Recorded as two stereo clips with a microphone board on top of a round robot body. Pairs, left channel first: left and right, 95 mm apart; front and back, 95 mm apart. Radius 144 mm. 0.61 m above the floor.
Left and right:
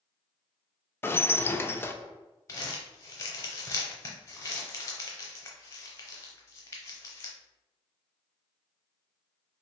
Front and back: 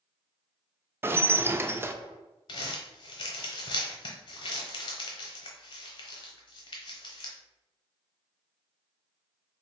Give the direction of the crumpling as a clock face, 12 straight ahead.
11 o'clock.